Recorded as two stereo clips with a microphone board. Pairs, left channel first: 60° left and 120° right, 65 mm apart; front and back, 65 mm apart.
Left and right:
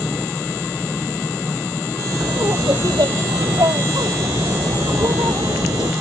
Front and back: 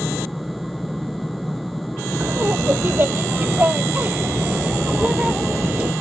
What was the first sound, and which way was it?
Laughter, 125° right.